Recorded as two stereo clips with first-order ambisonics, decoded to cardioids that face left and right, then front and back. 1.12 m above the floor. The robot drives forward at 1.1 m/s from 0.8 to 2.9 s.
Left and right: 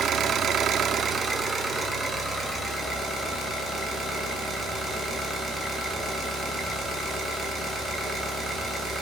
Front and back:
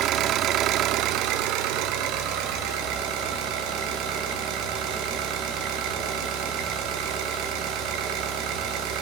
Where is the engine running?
145° right, 1.0 m; by 9.0 s 170° right, 3 m.